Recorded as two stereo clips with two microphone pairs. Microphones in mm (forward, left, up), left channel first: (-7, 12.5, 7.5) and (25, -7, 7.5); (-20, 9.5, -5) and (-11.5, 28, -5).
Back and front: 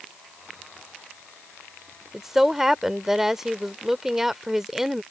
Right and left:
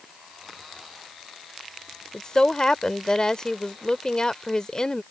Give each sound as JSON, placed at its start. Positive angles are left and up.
{"t": 2.1, "sound": "a woman speaking", "azimuth_deg": -105}